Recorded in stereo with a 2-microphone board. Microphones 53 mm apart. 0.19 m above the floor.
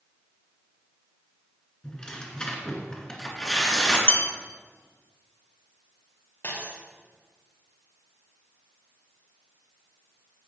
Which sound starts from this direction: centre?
Tearing paper, at 1.8 s.